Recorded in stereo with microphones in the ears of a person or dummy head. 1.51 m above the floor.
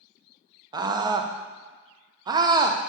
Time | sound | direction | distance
0.7 | a scream | 20° right (ahead or behind) | 0.7 m